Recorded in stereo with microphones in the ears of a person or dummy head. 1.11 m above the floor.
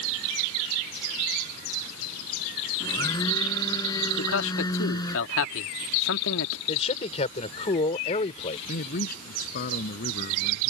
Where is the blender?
15° left (ahead or behind).